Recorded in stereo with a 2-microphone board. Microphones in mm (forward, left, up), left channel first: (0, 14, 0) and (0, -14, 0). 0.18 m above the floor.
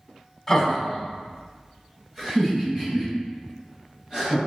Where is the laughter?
5° left (ahead or behind), 1.1 m; by 4.4 s 30° right (ahead or behind), 3.5 m.